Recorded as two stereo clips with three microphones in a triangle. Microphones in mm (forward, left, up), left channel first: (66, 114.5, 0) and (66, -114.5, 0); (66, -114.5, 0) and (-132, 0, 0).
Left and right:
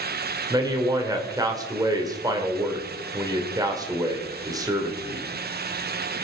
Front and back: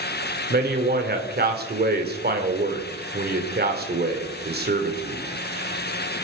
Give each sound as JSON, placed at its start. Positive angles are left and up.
{"t": 0.5, "sound": "a man speaking", "azimuth_deg": -165, "distance_m": 2.0}